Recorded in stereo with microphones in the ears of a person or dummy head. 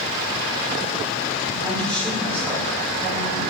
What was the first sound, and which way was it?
A woman speaking, 5° left (ahead or behind).